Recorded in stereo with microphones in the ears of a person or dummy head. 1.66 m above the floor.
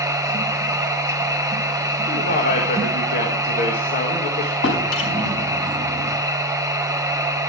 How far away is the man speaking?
About 1.6 m.